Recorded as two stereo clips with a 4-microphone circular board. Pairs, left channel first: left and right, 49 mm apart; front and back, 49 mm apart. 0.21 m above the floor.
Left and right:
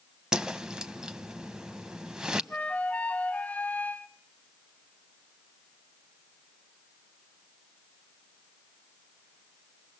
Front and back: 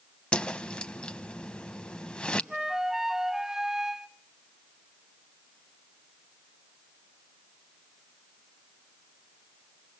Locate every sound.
0.3 s a whoosh: 35° right, 1.0 m
2.5 s a flute: 105° left, 0.6 m